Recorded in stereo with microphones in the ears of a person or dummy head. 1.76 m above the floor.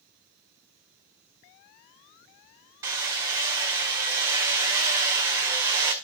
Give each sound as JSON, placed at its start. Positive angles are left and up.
{"t": 2.8, "sound": "hammering", "side_deg": -20, "distance_m": 2.0}